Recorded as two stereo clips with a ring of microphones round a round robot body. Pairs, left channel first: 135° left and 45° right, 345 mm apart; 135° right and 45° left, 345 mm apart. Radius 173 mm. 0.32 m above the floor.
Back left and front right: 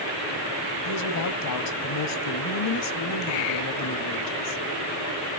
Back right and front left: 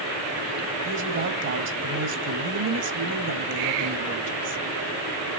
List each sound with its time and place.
0.8 s a woman speaking: 100° left, 1.8 m